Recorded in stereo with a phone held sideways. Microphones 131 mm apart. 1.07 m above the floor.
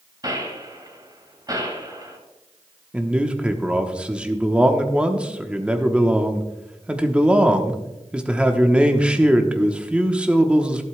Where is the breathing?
I don't hear breathing.